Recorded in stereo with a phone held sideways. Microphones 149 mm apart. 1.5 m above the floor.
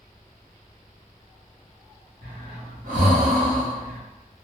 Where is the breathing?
60° right (ahead or behind), 0.9 m.